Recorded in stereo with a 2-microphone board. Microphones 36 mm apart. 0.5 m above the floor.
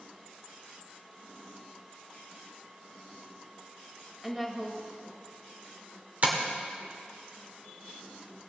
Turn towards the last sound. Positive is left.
turn(degrees=-45)  # may be behind; listen again after turning